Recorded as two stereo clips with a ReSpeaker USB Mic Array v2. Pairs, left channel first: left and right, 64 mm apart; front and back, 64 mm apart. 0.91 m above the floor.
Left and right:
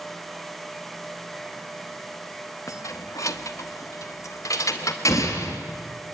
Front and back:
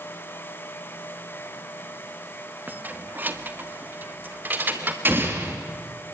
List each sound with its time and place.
2.7 s keys jangling: 120° left, 0.9 m
5.0 s an explosion: 125° left, 4 m